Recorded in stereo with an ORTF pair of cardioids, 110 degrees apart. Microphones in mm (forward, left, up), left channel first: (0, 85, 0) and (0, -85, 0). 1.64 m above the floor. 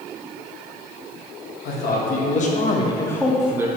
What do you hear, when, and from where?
1.6 s a man speaking: 65° left, 1.1 m; by 3.7 s 15° right, 0.6 m